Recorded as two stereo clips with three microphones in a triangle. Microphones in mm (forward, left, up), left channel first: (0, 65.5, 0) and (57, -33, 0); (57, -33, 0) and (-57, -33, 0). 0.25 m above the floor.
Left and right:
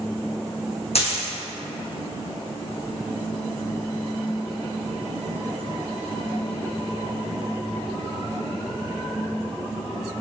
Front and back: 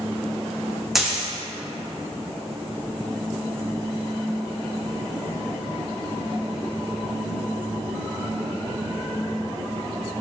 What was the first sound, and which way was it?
A dropped coin, 95° left.